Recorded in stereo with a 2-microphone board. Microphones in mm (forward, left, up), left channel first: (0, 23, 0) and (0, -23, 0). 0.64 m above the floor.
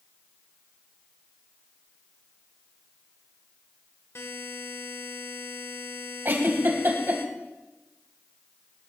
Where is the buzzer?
70° left (ahead or behind), 2 m.